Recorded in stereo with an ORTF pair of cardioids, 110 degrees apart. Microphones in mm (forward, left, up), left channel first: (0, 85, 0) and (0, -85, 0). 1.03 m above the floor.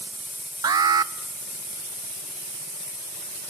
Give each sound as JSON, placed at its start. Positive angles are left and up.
{"t": 0.6, "sound": "an alarm", "azimuth_deg": -25, "distance_m": 0.9}